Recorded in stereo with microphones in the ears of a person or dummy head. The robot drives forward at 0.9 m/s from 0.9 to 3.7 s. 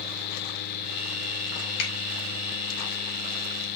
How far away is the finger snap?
About 5.5 m.